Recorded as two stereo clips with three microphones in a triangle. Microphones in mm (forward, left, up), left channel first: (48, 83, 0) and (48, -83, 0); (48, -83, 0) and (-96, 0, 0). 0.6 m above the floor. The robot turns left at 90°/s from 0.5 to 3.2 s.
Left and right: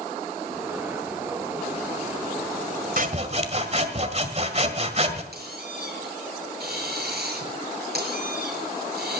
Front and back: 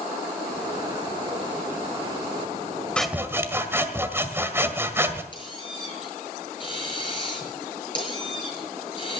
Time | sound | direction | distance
3.0 | sawing | 115° right | 1.8 m
5.3 | a squeak | 90° right | 6 m